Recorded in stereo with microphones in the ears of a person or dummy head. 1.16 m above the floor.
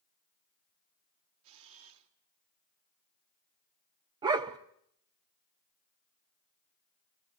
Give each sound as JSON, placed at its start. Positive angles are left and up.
{"t": 1.4, "sound": "a camera shutter", "side_deg": -75, "distance_m": 2.5}
{"t": 4.2, "sound": "a dog barking", "side_deg": -25, "distance_m": 0.7}